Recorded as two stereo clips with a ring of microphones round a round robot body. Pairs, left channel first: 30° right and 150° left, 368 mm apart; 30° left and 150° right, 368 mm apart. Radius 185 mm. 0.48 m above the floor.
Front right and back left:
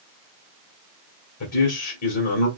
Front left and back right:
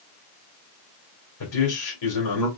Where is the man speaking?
10° left, 1.9 m.